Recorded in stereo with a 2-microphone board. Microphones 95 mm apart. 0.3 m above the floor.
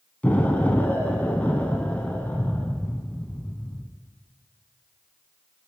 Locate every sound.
0.2 s an explosion: 15° left (ahead or behind), 0.7 m